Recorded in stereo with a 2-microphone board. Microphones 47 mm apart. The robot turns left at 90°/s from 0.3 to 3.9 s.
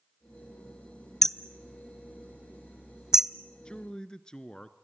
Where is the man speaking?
20° left (ahead or behind), 1.1 m.